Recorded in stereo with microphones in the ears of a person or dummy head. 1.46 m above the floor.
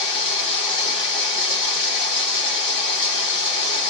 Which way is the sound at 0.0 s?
30° left (ahead or behind).